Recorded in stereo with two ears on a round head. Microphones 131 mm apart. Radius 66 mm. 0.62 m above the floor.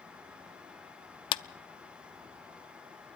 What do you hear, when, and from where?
1.3 s a clap: 35° left (ahead or behind), 0.5 m